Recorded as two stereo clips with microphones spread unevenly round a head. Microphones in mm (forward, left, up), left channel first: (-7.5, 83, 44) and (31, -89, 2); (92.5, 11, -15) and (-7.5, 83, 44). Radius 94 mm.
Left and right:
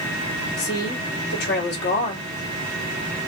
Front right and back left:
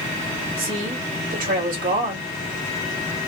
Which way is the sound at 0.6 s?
140° left.